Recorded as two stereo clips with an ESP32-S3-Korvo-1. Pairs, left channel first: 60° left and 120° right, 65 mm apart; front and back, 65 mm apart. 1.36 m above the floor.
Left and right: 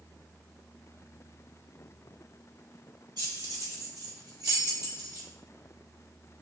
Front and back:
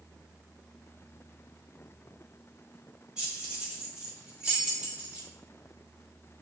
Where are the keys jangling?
105° right, 3 m; by 5.3 s 110° right, 2 m.